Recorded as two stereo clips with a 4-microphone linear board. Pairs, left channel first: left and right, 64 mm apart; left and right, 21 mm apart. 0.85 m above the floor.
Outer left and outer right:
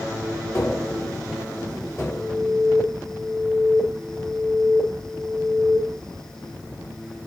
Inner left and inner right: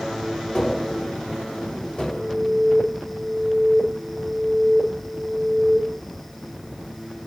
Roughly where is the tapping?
Left.